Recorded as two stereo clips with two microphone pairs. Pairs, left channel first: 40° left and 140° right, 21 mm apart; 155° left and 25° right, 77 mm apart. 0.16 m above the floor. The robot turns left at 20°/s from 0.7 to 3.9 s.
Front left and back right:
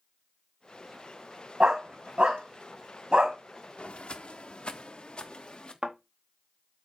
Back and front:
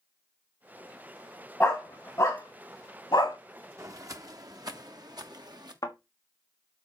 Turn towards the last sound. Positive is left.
turn(degrees=-165)